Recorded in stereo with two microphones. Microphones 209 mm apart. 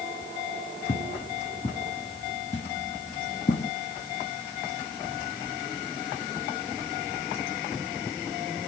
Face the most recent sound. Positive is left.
turn(degrees=45)  # may be behind; listen again after turning